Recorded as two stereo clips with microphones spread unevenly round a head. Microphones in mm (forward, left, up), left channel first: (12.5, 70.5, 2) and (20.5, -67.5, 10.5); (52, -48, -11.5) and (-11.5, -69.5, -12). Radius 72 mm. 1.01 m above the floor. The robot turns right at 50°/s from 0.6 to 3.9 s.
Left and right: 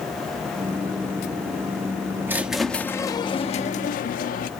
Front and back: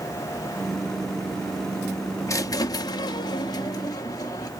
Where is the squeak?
15° right, 0.7 m; by 4.5 s 65° left, 0.7 m.